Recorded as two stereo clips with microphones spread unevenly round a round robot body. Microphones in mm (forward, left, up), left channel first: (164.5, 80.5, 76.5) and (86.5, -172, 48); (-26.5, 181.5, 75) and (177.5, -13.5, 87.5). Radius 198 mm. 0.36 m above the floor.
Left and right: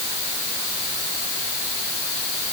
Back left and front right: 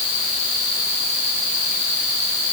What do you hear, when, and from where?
Only background noise.